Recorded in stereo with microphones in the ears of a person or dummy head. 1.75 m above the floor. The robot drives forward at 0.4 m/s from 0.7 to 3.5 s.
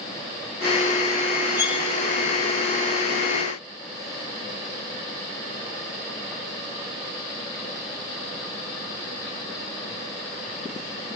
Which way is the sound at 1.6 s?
20° left (ahead or behind).